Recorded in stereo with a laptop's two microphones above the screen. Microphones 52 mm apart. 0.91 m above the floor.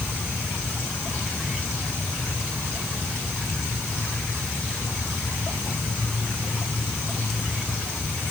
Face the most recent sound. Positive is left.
No sound to turn to.